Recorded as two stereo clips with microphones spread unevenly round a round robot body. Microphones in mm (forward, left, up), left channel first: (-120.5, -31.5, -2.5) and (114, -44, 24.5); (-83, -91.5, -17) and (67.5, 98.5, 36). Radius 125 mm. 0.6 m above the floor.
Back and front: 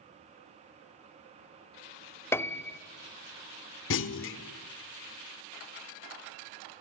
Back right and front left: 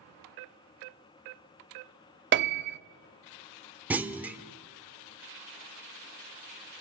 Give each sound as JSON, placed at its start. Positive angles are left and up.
{"t": 2.3, "sound": "a piano", "azimuth_deg": 100, "distance_m": 0.6}
{"t": 3.9, "sound": "a clunk", "azimuth_deg": 140, "distance_m": 0.8}